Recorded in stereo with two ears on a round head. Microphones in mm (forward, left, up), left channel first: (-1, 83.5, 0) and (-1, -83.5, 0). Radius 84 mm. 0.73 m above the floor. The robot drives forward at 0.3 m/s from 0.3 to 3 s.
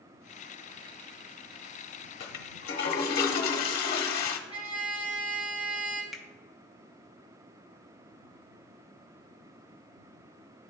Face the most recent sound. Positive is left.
turn(degrees=0)  # may be behind; listen again after turning